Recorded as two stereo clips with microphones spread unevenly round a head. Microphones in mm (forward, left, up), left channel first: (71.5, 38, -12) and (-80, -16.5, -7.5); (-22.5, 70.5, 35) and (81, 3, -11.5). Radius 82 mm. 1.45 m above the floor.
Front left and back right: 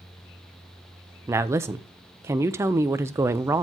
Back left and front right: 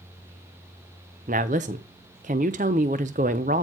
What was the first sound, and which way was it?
A woman speaking, 85° right.